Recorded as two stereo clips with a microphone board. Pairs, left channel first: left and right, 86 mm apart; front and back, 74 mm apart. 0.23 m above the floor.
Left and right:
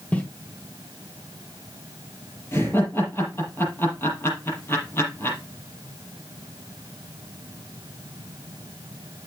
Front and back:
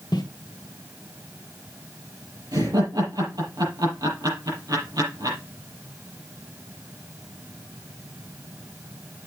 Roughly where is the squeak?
I don't hear a squeak.